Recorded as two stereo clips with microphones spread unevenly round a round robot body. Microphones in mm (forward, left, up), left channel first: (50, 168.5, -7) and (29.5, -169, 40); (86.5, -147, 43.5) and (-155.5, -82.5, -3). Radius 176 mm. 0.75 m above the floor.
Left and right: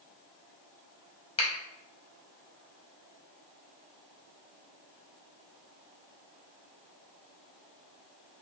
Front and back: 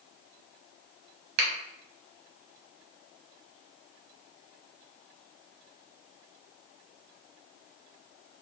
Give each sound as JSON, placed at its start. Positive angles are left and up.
{"t": 1.4, "sound": "a finger snap", "azimuth_deg": 150, "distance_m": 0.6}